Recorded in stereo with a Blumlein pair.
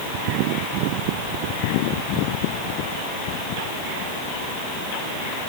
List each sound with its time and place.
Only background noise.